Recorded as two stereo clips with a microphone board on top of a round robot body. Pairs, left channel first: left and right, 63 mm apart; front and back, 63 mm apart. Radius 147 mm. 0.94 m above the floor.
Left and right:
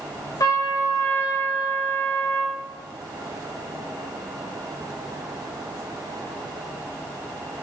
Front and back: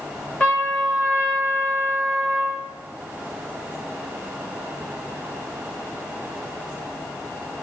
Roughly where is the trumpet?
Left.